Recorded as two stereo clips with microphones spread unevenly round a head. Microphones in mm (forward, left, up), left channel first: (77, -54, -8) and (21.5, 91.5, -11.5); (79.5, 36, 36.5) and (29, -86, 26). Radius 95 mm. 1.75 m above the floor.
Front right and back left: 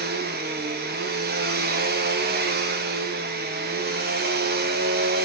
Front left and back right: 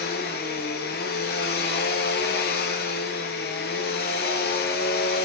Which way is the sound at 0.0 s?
90° left.